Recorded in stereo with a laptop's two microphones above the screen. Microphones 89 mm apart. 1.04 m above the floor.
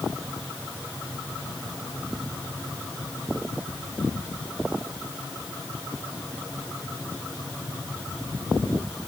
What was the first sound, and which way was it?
Only background noise.